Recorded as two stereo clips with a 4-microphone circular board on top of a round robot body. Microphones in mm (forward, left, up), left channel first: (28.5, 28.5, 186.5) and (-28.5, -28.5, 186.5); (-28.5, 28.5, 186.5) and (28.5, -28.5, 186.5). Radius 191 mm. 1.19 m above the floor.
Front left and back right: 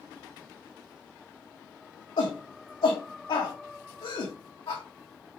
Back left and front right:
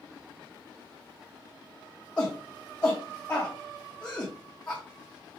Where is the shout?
60° left, 1.7 m.